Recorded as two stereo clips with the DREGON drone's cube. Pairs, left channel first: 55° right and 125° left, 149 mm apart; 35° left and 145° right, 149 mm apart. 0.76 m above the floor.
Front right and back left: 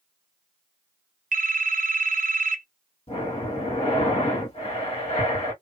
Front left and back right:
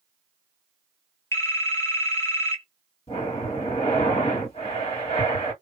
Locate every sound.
1.3 s a phone ringing: 105° left, 0.7 m
3.1 s breathing: 10° right, 1.6 m